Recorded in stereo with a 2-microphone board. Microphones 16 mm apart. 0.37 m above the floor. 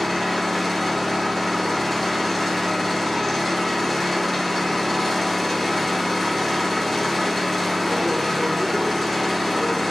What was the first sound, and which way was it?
An engine running, 5° right (ahead or behind).